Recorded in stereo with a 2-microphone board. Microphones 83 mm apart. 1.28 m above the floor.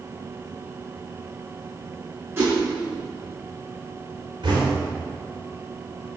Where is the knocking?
70° right (ahead or behind), 4 m.